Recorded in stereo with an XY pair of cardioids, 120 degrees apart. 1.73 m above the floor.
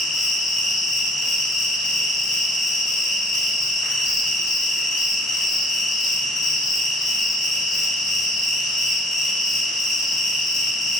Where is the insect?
50° left, 0.7 m.